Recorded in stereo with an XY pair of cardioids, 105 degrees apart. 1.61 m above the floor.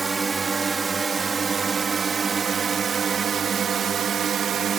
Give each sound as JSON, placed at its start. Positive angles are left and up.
{"t": 0.0, "sound": "a drone", "azimuth_deg": -35}